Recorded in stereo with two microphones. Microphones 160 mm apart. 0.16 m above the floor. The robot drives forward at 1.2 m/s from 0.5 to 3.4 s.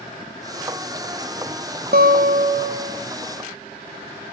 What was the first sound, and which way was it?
A guitar, 80° right.